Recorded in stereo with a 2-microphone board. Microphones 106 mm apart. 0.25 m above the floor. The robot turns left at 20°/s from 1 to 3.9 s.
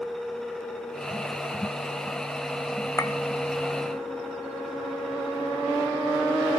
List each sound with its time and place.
3.0 s a clink: 25° left (ahead or behind), 0.5 m